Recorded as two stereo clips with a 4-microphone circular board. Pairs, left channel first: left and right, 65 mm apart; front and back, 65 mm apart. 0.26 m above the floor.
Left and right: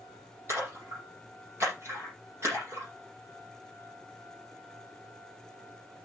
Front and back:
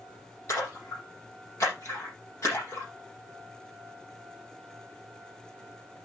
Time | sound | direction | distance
0.5 | a splash | 40° right | 7.5 m